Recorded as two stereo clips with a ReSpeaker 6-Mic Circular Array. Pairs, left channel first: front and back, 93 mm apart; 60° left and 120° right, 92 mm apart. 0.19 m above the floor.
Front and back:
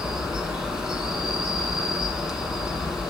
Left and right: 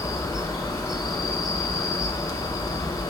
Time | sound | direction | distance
0.0 | an insect | 100° left | 0.7 m